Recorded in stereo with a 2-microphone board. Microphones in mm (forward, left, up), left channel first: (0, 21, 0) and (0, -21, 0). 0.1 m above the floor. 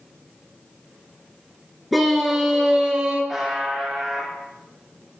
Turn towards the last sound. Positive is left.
turn(degrees=-5)  # may be behind; listen again after turning